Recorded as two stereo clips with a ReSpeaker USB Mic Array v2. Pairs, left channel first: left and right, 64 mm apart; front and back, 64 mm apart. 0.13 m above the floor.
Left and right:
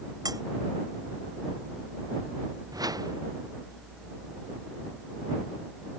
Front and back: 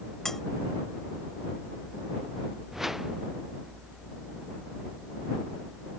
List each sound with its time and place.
0.2 s cutlery clinking: 85° right
2.7 s a whoosh: 95° right